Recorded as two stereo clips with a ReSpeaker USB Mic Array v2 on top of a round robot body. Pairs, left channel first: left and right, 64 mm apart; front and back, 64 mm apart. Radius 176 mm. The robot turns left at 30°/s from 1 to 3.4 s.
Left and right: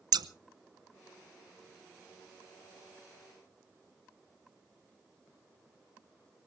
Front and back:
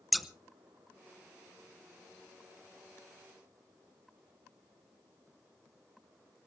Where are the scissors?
90° right, 0.8 m.